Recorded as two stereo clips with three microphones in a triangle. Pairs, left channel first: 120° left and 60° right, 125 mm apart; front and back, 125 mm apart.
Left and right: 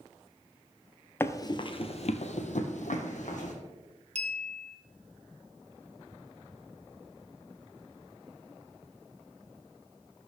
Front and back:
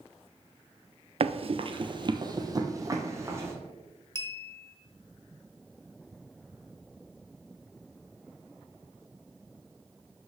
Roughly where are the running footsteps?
Behind.